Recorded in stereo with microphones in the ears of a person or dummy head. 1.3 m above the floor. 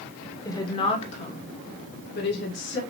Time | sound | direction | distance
0.5 | a woman speaking | 15° left (ahead or behind) | 1.0 m